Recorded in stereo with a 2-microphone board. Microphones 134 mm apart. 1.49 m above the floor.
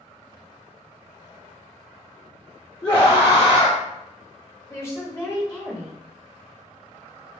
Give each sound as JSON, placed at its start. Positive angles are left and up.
{"t": 2.8, "sound": "a scream", "side_deg": 30, "distance_m": 0.6}
{"t": 4.7, "sound": "a woman speaking", "side_deg": 20, "distance_m": 0.7}